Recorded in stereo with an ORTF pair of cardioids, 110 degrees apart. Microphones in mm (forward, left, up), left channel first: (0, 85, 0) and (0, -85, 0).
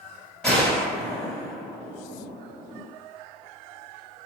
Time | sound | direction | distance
0.4 | a gunshot | 5° left | 2.5 m